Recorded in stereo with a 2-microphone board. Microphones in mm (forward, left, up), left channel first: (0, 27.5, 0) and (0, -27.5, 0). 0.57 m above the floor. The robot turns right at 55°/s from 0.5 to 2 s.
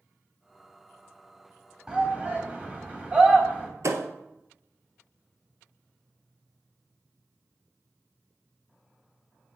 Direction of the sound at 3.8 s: 60° right (ahead or behind).